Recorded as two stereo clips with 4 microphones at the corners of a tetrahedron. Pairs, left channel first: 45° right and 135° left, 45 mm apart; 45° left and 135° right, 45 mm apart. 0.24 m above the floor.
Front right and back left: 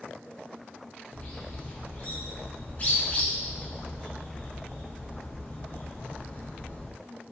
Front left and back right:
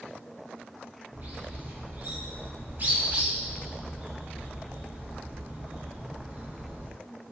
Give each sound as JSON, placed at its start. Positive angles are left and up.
{"t": 1.1, "sound": "a bird", "azimuth_deg": -95, "distance_m": 0.7}